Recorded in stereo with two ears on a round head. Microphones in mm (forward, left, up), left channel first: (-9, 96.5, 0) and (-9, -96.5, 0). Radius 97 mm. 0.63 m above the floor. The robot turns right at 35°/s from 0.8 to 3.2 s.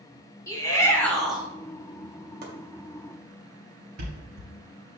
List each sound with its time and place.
0.5 s a shout: 15° left (ahead or behind), 1.6 m; by 1.5 s 5° right (ahead or behind), 1.6 m
2.4 s chopping: 45° right (ahead or behind), 2.5 m; by 2.5 s 50° right (ahead or behind), 2.5 m
4.0 s a thud: 90° right, 4 m